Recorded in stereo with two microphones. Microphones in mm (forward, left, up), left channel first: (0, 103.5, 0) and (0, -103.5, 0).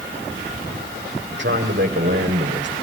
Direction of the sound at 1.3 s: 60° right (ahead or behind).